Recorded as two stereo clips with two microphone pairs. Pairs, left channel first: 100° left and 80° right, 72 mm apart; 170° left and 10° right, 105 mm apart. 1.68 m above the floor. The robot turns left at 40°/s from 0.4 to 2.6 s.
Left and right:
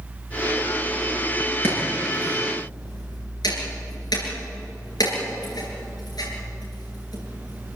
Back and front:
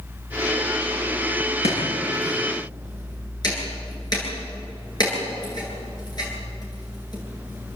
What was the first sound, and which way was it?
Chopping, 160° left.